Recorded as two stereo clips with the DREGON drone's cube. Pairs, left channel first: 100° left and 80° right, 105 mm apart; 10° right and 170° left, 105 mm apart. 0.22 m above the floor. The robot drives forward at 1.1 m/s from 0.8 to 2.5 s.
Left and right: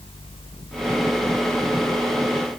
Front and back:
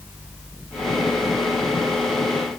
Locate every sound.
Only background noise.